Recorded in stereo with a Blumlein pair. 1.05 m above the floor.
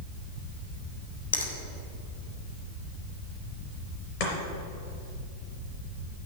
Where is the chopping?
45° left, 3.5 m.